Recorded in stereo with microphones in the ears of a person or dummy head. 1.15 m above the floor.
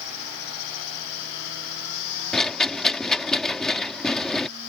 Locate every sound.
2.3 s a rattle: centre (ahead or behind)